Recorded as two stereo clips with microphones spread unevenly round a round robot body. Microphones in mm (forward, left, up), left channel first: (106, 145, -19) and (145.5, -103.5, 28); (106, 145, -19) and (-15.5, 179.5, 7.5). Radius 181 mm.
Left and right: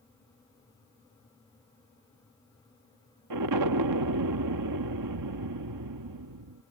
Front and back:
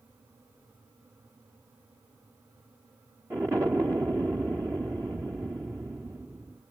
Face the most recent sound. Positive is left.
turn(degrees=-110)